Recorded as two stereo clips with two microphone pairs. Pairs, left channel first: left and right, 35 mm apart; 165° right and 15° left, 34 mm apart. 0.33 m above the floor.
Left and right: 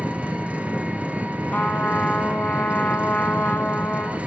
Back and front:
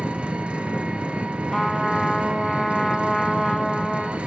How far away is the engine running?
About 1.7 m.